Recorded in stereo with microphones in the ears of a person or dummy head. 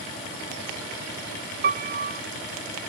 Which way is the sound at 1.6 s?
45° right (ahead or behind).